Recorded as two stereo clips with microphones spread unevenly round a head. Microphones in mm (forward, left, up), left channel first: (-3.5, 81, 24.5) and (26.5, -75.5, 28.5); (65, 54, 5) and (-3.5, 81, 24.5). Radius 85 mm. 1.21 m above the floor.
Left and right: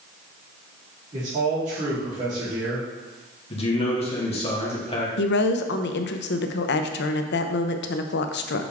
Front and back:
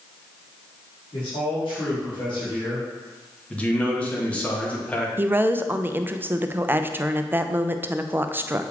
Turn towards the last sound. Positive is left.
turn(degrees=90)